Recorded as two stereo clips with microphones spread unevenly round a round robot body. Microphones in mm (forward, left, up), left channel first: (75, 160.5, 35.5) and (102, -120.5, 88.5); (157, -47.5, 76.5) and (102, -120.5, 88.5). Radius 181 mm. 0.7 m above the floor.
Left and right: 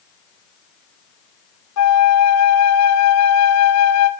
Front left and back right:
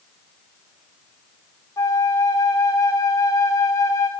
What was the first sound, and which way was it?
A flute, 110° left.